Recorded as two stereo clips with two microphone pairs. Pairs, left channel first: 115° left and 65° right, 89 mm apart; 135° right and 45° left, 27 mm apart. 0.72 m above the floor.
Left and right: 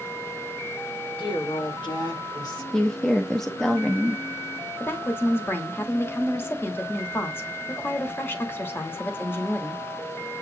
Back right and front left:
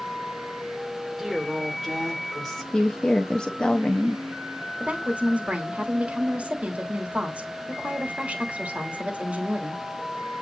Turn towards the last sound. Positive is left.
turn(degrees=55)